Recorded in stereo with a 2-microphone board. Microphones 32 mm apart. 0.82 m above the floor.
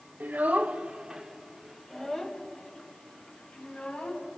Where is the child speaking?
60° right (ahead or behind), 1.6 m; by 4.3 s 45° left (ahead or behind), 4.5 m.